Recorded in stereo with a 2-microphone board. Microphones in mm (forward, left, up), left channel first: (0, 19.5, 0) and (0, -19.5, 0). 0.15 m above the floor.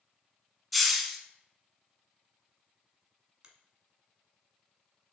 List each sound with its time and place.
0.7 s a hiss: centre (ahead or behind), 0.5 m
3.4 s a finger snap: 20° right (ahead or behind), 0.9 m